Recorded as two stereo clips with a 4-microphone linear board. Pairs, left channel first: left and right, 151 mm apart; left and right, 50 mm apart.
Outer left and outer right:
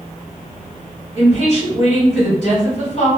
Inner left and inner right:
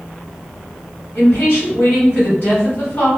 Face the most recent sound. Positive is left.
turn(degrees=50)  # may be behind; listen again after turning